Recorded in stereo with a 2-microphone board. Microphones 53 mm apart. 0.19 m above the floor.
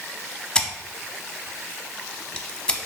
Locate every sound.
0.6 s scissors: 15° left (ahead or behind), 0.6 m